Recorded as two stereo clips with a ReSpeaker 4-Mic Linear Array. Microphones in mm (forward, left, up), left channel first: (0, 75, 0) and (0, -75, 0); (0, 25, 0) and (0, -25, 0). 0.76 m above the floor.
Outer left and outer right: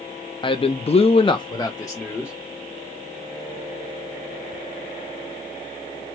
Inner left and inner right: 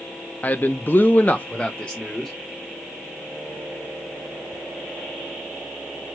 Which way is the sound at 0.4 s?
35° left (ahead or behind).